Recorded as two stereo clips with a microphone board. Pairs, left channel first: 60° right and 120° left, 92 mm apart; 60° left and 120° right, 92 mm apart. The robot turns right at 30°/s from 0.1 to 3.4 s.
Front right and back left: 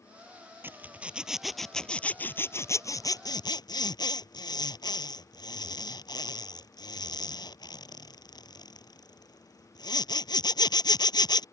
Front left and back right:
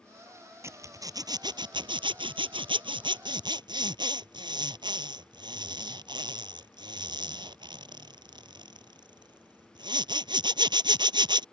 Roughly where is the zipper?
Behind.